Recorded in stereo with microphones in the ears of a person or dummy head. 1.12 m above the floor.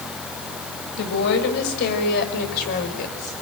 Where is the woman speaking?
65° left (ahead or behind), 6 m; by 3.3 s 45° left (ahead or behind), 4.5 m.